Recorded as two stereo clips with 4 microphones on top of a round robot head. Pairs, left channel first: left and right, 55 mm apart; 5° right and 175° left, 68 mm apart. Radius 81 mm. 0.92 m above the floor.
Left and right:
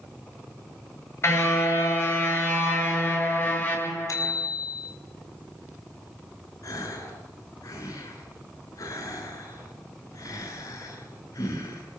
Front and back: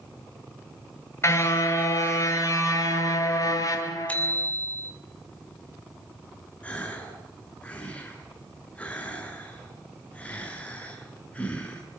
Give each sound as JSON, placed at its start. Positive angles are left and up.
{"t": 1.2, "sound": "a car horn", "azimuth_deg": 45, "distance_m": 8.5}
{"t": 4.1, "sound": "a bicycle bell", "azimuth_deg": 65, "distance_m": 6.0}
{"t": 6.6, "sound": "a gasp", "azimuth_deg": 65, "distance_m": 8.0}